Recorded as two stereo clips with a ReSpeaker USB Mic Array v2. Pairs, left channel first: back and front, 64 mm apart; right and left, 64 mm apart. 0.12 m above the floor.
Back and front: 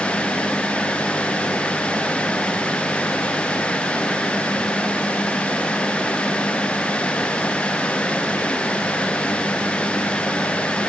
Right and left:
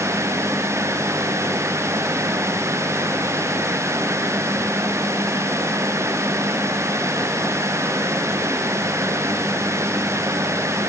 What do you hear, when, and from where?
Only background noise.